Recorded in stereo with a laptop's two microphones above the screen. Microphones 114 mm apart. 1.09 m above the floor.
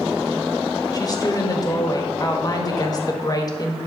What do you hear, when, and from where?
0.9 s a woman speaking: 35° left (ahead or behind), 1.5 m